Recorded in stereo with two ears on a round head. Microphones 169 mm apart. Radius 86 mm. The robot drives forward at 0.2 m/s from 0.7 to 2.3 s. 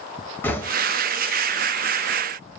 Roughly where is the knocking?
Centre.